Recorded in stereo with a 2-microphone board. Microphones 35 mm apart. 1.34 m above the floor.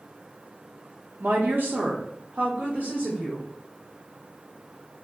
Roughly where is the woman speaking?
Right.